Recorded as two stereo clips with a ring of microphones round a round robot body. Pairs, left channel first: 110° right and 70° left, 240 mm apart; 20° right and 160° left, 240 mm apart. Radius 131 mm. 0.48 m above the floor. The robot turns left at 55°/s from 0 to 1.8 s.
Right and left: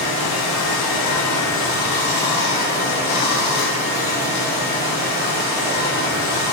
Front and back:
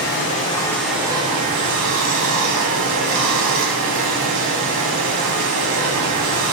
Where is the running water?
65° right, 0.8 m; by 6.5 s 165° right, 0.8 m.